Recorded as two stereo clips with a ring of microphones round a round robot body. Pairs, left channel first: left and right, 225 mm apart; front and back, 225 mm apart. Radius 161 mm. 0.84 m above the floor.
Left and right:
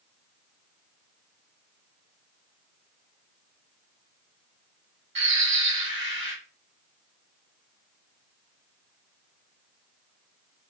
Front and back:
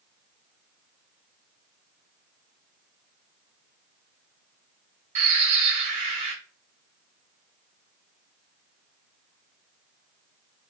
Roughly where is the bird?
Behind right.